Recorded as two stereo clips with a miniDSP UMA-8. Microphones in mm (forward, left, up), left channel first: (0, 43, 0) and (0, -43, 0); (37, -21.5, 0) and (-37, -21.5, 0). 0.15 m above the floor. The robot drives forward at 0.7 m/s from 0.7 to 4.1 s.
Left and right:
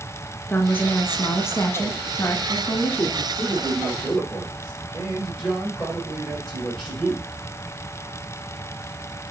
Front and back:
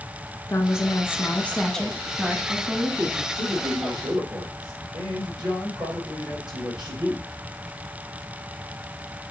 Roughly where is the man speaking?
Behind.